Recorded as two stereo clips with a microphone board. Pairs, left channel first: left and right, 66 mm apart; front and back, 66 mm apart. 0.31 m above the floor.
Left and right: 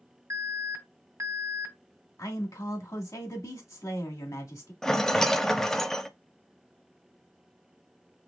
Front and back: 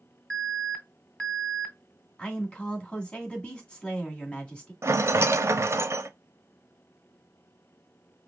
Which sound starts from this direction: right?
An alarm, at 0.3 s.